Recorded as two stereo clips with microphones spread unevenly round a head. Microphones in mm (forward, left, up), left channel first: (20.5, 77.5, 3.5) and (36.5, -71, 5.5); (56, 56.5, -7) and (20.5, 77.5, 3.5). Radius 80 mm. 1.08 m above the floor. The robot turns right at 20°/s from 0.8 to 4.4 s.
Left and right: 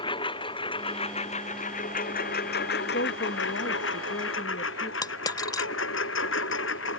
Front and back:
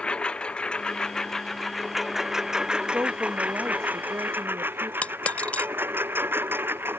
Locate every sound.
0.0 s a lawn mower: 35° left; by 7.0 s 120° left
2.9 s a woman speaking: 100° left; by 4.9 s 130° left
5.0 s a dropped coin: 35° left